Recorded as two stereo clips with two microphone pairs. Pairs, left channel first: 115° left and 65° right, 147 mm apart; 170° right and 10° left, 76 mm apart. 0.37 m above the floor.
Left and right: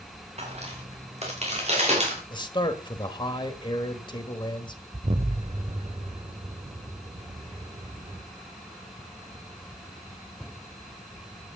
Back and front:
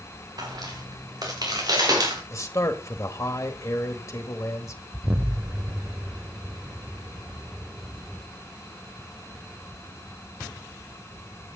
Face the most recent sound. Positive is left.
turn(degrees=-40)